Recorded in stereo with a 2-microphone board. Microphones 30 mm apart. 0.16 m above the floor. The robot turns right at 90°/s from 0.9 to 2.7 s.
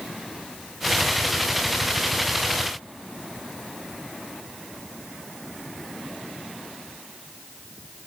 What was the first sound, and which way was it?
Only background noise.